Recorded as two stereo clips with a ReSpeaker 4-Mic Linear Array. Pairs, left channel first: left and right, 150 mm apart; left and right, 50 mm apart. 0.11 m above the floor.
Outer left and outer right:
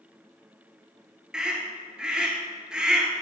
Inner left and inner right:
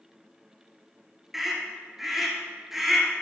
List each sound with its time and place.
1.3 s a scream: 5° right (ahead or behind), 1.7 m